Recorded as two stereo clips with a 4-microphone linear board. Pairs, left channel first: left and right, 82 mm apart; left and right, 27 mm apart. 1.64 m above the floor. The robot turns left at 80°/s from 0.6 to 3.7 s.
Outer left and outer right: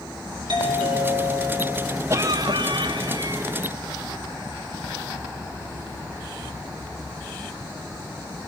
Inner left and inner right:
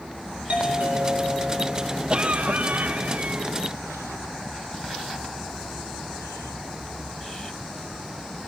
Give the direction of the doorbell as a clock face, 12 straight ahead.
2 o'clock.